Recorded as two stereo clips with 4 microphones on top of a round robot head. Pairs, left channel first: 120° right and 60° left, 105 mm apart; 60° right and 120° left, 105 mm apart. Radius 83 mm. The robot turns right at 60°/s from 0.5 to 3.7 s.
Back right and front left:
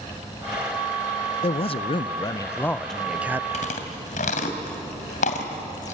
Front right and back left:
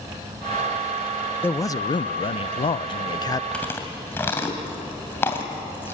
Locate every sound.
1.4 s a man speaking: 125° right, 0.6 m; by 3.4 s 5° right, 0.6 m
3.5 s chewing: 140° right, 2.5 m; by 5.9 s 130° right, 2.5 m